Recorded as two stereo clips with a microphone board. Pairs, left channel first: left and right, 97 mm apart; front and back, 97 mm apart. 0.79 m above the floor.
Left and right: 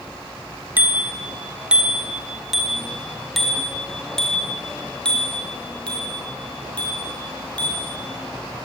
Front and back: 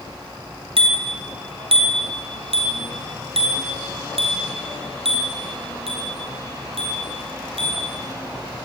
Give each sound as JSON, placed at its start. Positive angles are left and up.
{"t": 0.8, "sound": "a bicycle bell", "azimuth_deg": -160, "distance_m": 3.0}